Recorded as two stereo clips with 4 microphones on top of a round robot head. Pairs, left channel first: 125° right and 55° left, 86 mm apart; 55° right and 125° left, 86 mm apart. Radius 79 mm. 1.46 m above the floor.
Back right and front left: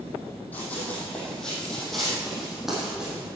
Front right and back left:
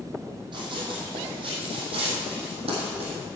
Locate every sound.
0.5 s running footsteps: 160° left, 3.5 m; by 3.3 s 135° left, 4 m